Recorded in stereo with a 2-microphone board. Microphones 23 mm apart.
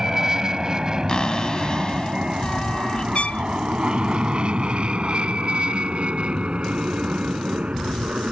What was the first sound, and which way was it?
An aircraft, 20° right (ahead or behind).